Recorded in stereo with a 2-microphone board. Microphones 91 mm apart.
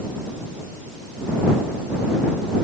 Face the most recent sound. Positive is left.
No sound to turn to.